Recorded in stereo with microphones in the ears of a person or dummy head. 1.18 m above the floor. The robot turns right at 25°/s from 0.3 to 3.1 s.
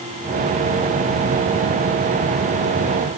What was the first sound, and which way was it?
Only background noise.